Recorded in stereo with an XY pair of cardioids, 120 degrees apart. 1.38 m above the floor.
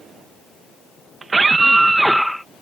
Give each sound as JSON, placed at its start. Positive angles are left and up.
{"t": 1.2, "sound": "a scream", "azimuth_deg": -30}